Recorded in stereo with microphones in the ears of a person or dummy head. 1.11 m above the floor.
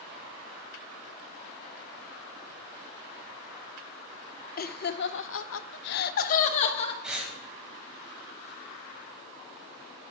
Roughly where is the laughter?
Left.